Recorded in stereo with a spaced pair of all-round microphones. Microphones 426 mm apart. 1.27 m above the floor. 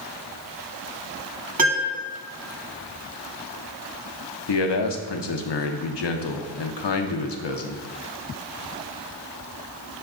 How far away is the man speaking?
About 0.5 m.